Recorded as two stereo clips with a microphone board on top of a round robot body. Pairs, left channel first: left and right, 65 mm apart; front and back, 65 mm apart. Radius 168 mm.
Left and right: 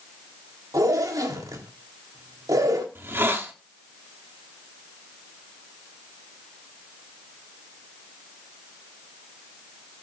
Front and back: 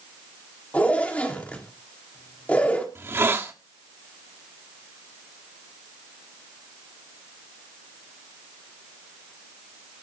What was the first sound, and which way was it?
A zipper, 70° right.